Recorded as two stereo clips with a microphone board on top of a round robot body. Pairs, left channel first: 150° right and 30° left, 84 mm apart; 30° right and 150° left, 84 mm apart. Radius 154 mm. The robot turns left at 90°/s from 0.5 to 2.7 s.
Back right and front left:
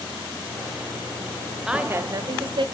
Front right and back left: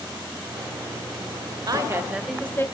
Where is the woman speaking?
115° left, 1.7 m; by 2.6 s 25° left, 1.7 m.